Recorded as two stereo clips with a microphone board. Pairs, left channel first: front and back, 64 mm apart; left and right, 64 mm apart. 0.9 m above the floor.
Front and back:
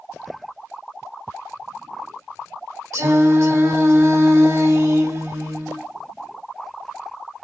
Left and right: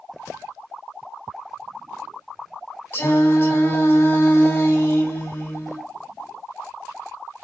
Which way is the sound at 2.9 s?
145° left.